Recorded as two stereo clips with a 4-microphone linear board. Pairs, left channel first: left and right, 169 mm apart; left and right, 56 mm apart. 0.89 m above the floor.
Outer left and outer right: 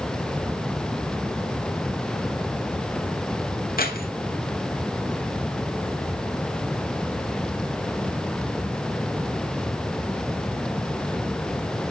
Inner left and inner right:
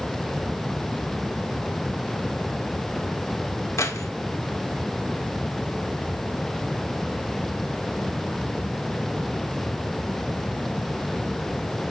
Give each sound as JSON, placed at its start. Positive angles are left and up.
{"t": 3.8, "sound": "keys jangling", "side_deg": 60, "distance_m": 1.6}